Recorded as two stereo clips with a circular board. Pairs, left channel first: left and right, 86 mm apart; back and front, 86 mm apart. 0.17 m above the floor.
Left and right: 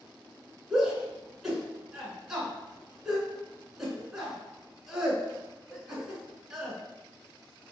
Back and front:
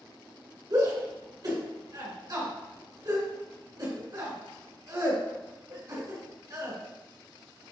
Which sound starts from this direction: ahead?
A shout, at 0.7 s.